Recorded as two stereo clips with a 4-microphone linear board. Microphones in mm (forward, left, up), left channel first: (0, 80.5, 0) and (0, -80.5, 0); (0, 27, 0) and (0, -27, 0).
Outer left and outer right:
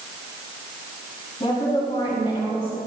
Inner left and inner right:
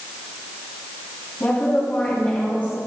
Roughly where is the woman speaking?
Left.